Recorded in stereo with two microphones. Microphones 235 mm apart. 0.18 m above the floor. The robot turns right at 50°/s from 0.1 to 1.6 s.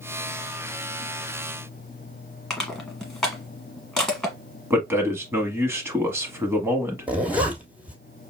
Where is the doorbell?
I don't hear a doorbell.